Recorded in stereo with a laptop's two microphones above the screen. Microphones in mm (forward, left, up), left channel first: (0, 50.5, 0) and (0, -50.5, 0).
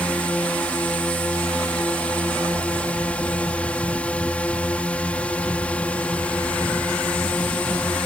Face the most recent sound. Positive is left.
turn(degrees=10)  # may be behind; listen again after turning